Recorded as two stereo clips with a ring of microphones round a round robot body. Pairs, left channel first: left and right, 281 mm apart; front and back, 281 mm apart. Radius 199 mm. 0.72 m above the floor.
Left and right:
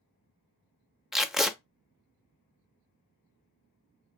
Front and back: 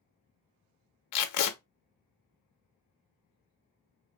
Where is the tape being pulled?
Straight ahead, 0.5 m.